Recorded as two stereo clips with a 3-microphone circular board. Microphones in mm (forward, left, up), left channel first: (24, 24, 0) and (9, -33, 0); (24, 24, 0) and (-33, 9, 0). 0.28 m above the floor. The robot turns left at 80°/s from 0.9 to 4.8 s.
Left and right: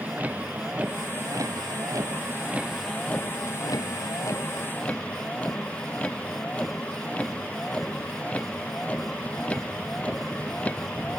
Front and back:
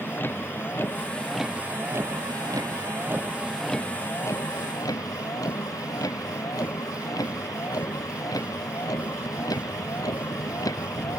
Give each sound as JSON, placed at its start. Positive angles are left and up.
{"t": 0.0, "sound": "a vehicle", "azimuth_deg": -40}